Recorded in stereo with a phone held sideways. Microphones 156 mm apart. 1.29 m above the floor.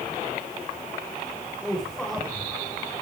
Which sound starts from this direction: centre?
A man speaking, at 1.6 s.